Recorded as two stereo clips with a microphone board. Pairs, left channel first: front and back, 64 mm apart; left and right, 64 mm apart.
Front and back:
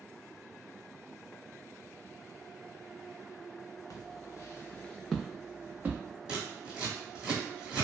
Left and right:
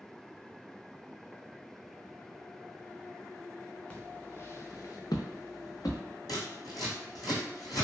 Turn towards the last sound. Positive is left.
turn(degrees=100)